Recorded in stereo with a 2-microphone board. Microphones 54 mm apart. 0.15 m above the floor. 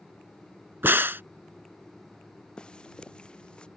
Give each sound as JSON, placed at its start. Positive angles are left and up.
{"t": 0.8, "sound": "a crack", "side_deg": -45}
{"t": 2.6, "sound": "footsteps", "side_deg": 20}